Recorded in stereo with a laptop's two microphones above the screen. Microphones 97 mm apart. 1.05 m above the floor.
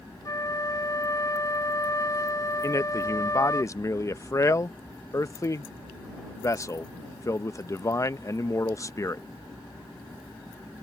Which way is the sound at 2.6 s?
35° left (ahead or behind).